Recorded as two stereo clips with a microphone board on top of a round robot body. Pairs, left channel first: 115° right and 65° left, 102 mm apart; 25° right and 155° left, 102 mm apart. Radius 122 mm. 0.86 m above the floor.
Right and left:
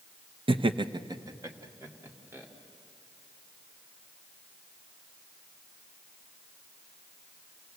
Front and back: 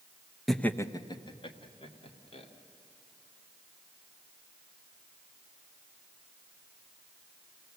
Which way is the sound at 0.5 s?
65° left.